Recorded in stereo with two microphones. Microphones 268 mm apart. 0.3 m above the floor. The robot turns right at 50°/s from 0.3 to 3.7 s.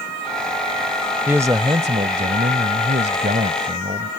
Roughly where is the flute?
No flute in this recording.